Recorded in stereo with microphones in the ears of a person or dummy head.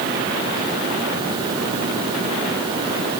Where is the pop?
I don't hear a pop.